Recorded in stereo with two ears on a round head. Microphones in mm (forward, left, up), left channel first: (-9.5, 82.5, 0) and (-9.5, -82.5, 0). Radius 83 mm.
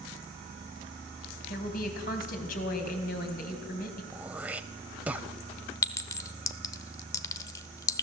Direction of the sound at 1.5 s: 50° left (ahead or behind).